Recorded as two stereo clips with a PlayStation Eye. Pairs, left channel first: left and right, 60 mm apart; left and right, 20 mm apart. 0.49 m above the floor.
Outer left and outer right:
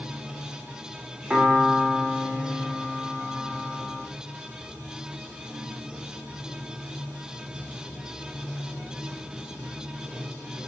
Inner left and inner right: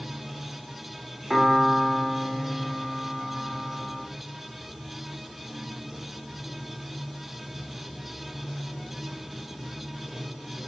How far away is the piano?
About 0.6 m.